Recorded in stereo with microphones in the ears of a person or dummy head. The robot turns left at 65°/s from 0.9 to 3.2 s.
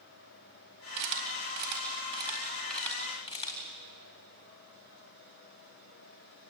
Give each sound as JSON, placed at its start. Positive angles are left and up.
{"t": 1.0, "sound": "a camera shutter", "side_deg": -60, "distance_m": 4.0}